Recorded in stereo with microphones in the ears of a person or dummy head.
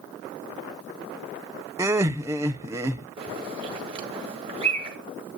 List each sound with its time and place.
1.8 s laughter: 15° right (ahead or behind), 0.8 m
3.2 s a bird: 25° right (ahead or behind), 1.7 m